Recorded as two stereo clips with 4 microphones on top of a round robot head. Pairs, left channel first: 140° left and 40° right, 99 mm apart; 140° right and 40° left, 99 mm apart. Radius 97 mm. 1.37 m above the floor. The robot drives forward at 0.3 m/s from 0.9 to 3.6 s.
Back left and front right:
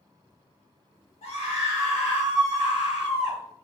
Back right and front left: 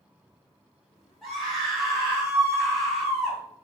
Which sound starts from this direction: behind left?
A scream, at 1.2 s.